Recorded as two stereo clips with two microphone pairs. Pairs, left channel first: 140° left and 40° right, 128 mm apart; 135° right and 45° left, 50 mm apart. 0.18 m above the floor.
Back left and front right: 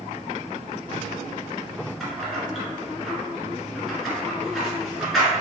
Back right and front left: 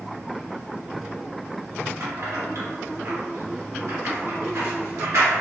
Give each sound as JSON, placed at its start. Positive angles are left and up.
{"t": 2.0, "sound": "keys jangling", "azimuth_deg": 50, "distance_m": 1.9}